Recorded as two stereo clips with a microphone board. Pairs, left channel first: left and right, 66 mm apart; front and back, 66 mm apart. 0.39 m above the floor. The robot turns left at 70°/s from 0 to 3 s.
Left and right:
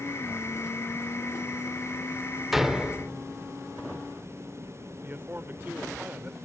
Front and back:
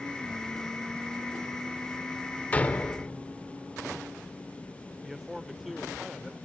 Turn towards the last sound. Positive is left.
turn(degrees=-95)